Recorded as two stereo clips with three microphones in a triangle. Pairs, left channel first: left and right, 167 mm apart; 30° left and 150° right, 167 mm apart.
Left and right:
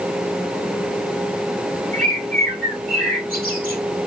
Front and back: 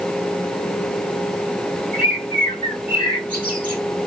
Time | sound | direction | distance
1.9 | a bird | 115° right | 3 m